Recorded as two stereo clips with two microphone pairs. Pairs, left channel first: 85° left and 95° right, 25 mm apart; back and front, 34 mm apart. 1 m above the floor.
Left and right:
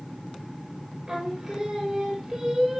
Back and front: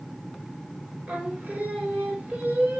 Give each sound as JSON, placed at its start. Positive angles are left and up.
{"t": 1.1, "sound": "singing", "azimuth_deg": -25, "distance_m": 2.5}